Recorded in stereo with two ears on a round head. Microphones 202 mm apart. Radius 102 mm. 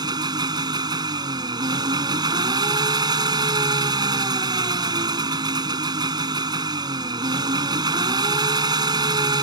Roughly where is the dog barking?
No dog barking in this recording.